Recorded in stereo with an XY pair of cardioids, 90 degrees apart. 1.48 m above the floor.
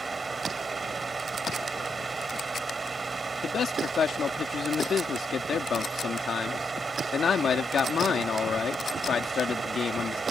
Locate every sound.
0.0 s a fan: 35° right
3.4 s a man speaking: 55° left